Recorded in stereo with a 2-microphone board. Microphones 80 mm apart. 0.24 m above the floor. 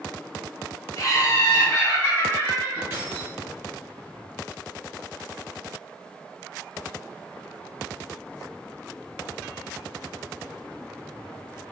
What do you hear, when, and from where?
1.0 s laughter: 45° left (ahead or behind), 1.6 m; by 2.8 s 25° left (ahead or behind), 2 m
2.9 s keys jangling: 30° right (ahead or behind), 1.9 m